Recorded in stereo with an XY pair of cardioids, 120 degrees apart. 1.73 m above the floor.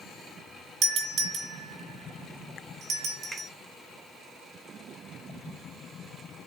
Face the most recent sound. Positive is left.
turn(degrees=-20)